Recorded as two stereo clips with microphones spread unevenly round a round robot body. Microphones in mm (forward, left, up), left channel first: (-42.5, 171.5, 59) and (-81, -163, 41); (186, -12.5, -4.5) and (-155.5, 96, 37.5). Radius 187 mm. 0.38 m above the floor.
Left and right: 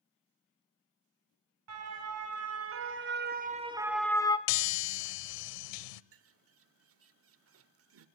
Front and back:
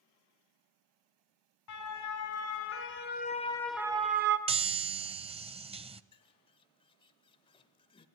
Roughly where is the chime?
Left.